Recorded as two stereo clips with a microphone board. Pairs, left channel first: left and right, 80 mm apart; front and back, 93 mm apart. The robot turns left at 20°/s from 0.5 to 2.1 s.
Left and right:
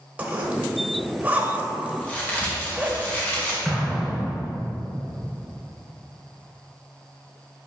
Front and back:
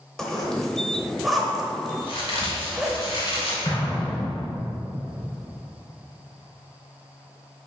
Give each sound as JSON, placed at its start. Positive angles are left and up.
{"t": 0.2, "sound": "a zipper", "azimuth_deg": -75, "distance_m": 1.0}
{"t": 2.0, "sound": "a crack", "azimuth_deg": 25, "distance_m": 1.8}
{"t": 3.6, "sound": "an explosion", "azimuth_deg": -5, "distance_m": 1.8}